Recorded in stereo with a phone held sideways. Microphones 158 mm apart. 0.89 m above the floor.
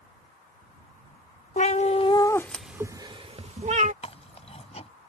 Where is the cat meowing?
50° left (ahead or behind); by 3.9 s 50° right (ahead or behind).